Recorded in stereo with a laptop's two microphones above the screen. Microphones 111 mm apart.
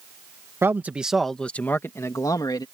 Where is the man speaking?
20° right (ahead or behind); by 2.6 s 40° left (ahead or behind).